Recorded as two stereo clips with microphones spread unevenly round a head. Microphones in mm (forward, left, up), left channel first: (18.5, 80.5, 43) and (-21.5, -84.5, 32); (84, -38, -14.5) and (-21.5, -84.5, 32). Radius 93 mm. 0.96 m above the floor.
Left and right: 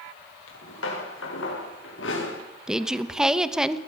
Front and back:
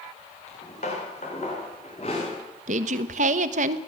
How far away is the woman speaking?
About 1.2 m.